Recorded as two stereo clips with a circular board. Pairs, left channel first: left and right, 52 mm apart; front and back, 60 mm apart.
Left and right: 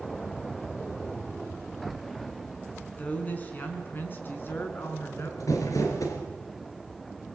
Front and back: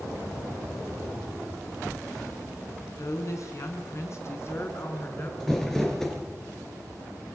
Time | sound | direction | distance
3.0 | a woman speaking | 30° left | 5 m
5.4 | crumpling | 80° left | 4.5 m